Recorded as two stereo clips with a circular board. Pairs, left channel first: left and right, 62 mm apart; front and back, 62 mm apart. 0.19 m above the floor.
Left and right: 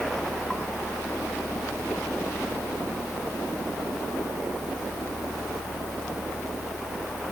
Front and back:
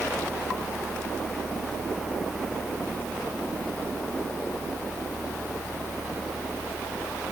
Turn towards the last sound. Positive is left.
No sound to turn to.